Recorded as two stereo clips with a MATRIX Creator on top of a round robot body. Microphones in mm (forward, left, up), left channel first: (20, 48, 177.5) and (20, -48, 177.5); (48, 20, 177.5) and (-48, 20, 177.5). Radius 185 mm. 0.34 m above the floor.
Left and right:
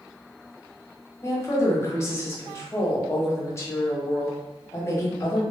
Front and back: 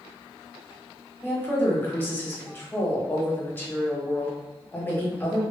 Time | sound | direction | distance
1.2 | a woman speaking | 55° left | 1.2 m